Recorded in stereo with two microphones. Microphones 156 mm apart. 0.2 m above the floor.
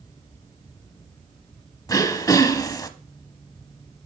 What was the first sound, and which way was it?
Throat clearing, 25° left (ahead or behind).